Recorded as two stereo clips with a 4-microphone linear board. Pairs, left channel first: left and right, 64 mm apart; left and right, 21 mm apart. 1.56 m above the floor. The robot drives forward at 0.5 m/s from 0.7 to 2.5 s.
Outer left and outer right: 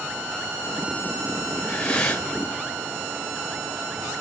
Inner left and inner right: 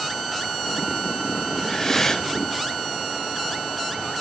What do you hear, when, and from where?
1.6 s breathing: 15° left (ahead or behind), 5.5 m